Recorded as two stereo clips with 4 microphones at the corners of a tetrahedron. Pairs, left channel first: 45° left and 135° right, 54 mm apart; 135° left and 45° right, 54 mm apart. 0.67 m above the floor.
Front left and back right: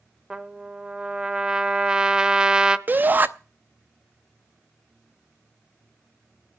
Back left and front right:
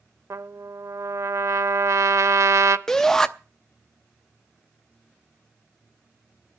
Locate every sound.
0.3 s a trumpet: 60° right, 0.7 m
2.9 s a shout: 150° right, 0.7 m